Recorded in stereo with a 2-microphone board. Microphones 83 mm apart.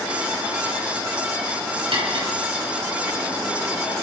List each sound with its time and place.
1.9 s cutlery clinking: 75° right (ahead or behind), 7.5 m